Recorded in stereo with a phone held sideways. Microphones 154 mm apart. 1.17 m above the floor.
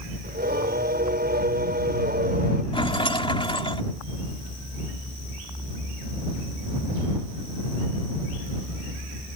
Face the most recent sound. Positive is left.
turn(degrees=35)  # may be behind; listen again after turning